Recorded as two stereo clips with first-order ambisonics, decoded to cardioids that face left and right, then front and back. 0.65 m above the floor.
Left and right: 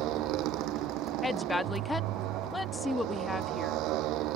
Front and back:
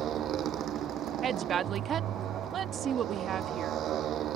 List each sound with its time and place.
0.0 s a motorcycle: 125° right
1.2 s a woman speaking: 165° left